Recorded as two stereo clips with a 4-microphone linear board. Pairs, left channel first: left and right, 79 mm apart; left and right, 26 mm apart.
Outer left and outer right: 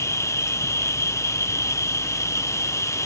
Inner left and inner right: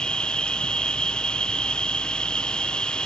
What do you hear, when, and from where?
0.0 s an insect: 40° left (ahead or behind)